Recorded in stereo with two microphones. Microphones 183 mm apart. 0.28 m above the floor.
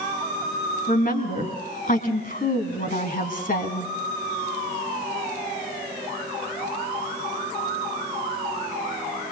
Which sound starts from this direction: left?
A woman speaking, at 0.9 s.